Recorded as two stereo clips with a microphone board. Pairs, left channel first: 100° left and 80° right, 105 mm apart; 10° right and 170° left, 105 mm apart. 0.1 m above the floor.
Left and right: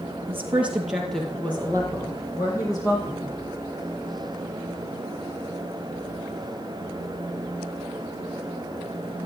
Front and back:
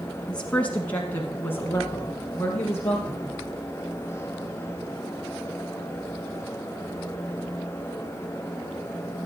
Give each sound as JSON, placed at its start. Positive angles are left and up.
{"t": 0.3, "sound": "a woman speaking", "azimuth_deg": -80, "distance_m": 1.6}